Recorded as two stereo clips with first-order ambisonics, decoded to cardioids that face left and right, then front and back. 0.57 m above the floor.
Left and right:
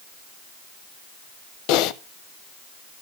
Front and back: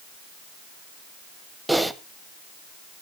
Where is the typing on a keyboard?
90° left, 0.5 m.